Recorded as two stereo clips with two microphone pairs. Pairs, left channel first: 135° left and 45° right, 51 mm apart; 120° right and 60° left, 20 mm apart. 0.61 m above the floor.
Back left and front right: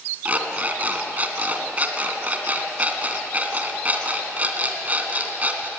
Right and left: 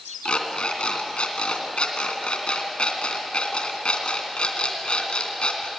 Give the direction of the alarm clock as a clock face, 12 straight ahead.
4 o'clock.